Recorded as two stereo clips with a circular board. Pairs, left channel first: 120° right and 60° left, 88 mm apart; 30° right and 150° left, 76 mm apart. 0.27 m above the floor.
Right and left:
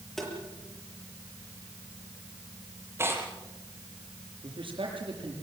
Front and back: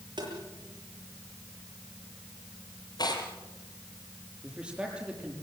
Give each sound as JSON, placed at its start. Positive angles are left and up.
{"t": 0.2, "sound": "tapping", "azimuth_deg": 150, "distance_m": 7.5}
{"t": 3.0, "sound": "tearing paper", "azimuth_deg": 0, "distance_m": 4.5}
{"t": 4.4, "sound": "a man speaking", "azimuth_deg": 75, "distance_m": 8.0}